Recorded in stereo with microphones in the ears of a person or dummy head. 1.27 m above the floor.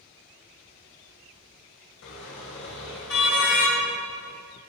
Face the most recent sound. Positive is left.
turn(degrees=75)  # may be behind; listen again after turning